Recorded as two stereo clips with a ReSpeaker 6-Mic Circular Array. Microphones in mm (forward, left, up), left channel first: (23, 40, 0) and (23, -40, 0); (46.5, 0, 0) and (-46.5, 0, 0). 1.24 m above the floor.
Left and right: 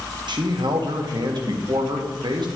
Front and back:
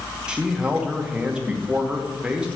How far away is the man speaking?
About 1.3 m.